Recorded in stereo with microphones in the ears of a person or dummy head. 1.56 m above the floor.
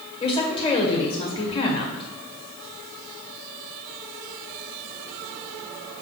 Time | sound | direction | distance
0.2 | a woman speaking | 25° left (ahead or behind) | 1.5 m